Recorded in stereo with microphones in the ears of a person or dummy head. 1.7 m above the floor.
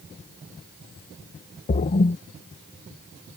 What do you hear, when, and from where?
1.7 s a splash: 40° left (ahead or behind)